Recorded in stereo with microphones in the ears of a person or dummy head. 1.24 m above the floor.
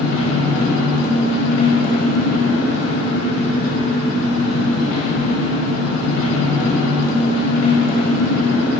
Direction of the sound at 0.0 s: 75° left (ahead or behind).